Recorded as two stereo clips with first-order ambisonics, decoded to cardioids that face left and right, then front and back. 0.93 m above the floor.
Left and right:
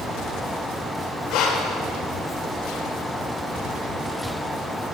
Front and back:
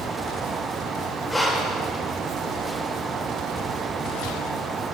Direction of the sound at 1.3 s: 80° left.